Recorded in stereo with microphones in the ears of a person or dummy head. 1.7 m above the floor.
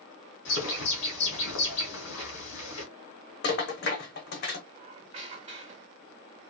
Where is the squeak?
35° right (ahead or behind), 1.1 m.